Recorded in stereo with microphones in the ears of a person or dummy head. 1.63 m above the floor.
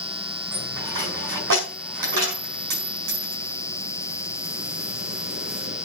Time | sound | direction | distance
0.5 | a dropped coin | 60° right (ahead or behind) | 5.5 m